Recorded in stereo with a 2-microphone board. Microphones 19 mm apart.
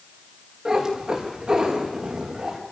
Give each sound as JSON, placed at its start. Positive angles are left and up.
{"t": 0.7, "sound": "a cat meowing", "side_deg": -30, "distance_m": 6.0}